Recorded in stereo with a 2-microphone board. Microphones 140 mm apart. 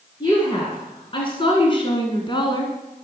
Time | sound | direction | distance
0.2 | a woman speaking | 35° left (ahead or behind) | 1.9 m